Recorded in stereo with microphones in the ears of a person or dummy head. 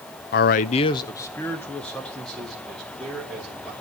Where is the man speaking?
50° left (ahead or behind), 0.5 m; by 3.7 s centre (ahead or behind), 3.5 m.